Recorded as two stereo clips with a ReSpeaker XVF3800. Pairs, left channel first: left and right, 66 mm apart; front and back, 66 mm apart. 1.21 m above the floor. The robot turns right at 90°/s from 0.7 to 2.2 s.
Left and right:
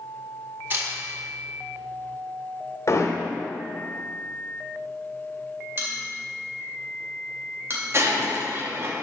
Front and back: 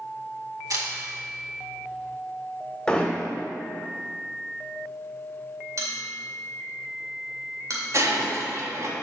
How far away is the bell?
About 2 m.